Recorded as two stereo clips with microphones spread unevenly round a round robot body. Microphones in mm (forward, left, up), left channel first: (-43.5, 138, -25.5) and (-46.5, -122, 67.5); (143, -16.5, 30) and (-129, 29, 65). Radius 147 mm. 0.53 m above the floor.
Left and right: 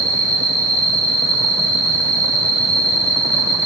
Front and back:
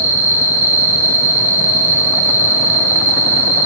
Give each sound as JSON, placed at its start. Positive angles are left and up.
{"t": 0.0, "sound": "an insect", "azimuth_deg": 65, "distance_m": 0.9}